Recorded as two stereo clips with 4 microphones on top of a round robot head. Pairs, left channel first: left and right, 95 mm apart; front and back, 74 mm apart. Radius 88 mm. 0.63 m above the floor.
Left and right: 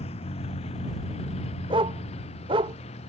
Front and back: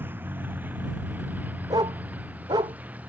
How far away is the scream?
I don't hear a scream.